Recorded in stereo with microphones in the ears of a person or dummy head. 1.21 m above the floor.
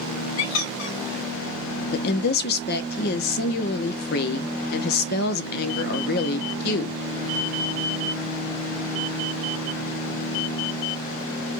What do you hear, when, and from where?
0.4 s a squeak: 65° left (ahead or behind), 1.1 m
1.9 s a woman speaking: 50° left (ahead or behind), 0.6 m